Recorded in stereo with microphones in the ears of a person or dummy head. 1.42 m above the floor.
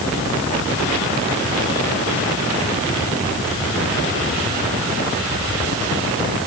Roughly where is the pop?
I don't hear a pop.